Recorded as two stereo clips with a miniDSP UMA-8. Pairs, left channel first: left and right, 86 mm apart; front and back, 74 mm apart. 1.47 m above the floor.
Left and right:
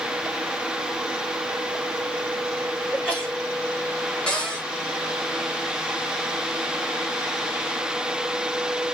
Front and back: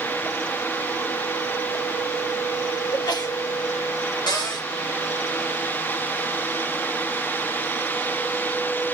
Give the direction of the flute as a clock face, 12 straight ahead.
No flute in this recording.